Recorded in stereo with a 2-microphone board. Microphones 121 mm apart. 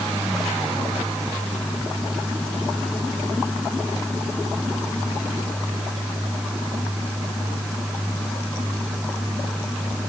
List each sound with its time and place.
Only background noise.